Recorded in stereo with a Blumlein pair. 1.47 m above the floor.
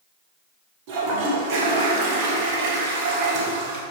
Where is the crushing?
No crushing in this recording.